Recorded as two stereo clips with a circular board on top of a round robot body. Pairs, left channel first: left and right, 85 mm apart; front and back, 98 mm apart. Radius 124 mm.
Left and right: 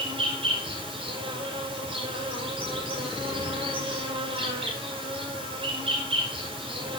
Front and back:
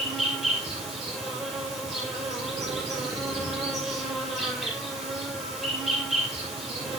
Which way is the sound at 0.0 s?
95° right.